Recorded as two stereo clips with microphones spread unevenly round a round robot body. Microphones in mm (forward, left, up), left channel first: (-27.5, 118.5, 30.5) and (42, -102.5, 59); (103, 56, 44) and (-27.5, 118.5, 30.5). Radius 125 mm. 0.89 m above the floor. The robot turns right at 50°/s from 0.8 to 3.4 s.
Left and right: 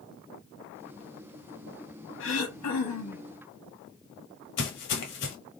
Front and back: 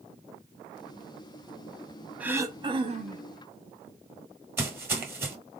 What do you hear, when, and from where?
2.2 s throat clearing: 75° left, 0.9 m; by 3.3 s 125° left, 0.9 m
4.6 s footsteps: 80° left, 1.2 m